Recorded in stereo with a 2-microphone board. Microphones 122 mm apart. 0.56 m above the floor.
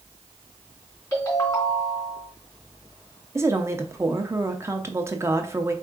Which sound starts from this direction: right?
A woman speaking, at 3.4 s.